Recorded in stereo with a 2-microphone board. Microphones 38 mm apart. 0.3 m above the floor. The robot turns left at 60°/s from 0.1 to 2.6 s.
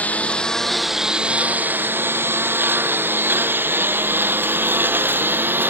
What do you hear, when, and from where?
0.0 s a lawn mower: 40° left (ahead or behind); by 5.7 s 70° right (ahead or behind)